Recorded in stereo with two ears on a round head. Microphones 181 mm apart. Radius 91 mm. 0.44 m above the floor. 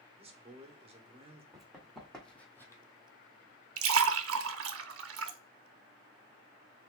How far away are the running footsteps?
About 1.9 m.